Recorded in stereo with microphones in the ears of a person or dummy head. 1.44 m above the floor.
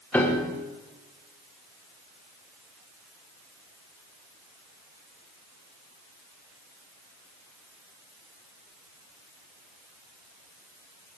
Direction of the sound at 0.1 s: 10° left (ahead or behind).